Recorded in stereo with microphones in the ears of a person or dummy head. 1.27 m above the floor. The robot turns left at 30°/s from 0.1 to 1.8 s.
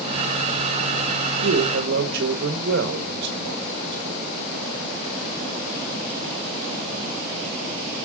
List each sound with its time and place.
1.4 s a man speaking: 70° right (ahead or behind), 1.2 m; by 4.3 s 60° right (ahead or behind), 1.2 m